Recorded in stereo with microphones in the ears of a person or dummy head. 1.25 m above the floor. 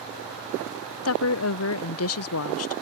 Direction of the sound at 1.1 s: 65° left (ahead or behind).